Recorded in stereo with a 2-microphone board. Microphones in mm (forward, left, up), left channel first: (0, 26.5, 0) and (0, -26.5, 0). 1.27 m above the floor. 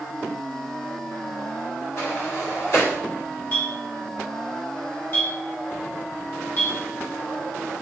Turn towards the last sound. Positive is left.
turn(degrees=45)  # may be behind; listen again after turning